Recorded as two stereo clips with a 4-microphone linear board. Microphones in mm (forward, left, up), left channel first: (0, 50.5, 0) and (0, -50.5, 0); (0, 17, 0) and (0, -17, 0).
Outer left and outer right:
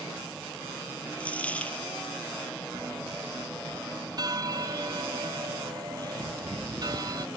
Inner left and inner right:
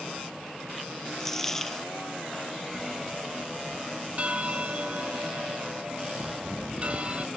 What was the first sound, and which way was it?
A dropped coin, 15° left (ahead or behind).